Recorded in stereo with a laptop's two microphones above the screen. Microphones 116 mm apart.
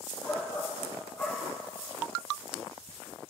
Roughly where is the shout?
Centre.